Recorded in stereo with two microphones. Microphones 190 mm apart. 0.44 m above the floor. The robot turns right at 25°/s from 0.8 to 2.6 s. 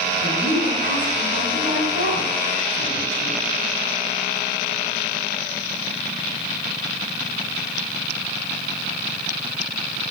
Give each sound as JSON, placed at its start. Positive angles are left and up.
{"t": 0.2, "sound": "a woman speaking", "azimuth_deg": -75, "distance_m": 3.0}